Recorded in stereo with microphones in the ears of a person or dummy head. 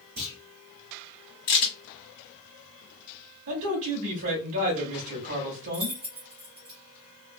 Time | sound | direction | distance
0.2 | a clunk | 20° right (ahead or behind) | 1.4 m
1.5 | a crack | 45° left (ahead or behind) | 1.4 m
3.5 | a man speaking | 70° right (ahead or behind) | 1.1 m
5.7 | keys jangling | 20° right (ahead or behind) | 0.9 m